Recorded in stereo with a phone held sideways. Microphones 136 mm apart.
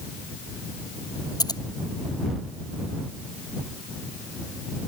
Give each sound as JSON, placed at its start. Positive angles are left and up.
{"t": 1.4, "sound": "scissors", "side_deg": 30}